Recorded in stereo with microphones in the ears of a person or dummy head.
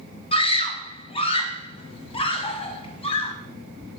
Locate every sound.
0.3 s a scream: 20° left (ahead or behind), 0.9 m